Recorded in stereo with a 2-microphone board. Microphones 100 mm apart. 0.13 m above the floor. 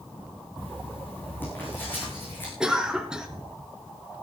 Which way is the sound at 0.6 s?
20° left (ahead or behind).